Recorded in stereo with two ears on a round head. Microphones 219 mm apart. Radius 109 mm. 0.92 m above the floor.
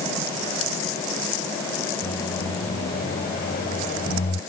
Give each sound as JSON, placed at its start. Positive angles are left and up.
{"t": 2.0, "sound": "a microwave", "side_deg": 40}